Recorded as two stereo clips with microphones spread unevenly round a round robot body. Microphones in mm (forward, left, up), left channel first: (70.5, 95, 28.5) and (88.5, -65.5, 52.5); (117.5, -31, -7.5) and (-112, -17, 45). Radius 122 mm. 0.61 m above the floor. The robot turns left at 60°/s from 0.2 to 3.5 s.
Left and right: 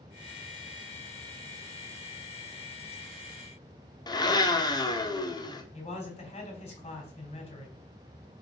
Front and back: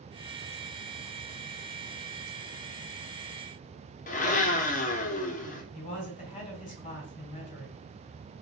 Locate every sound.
4.1 s a blender: 40° left, 1.4 m
5.7 s a man speaking: 50° left, 3.5 m